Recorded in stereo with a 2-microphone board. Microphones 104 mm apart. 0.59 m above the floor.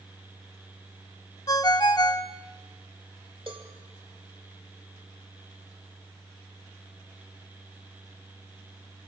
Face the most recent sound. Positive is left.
turn(degrees=-55)  # may be behind; listen again after turning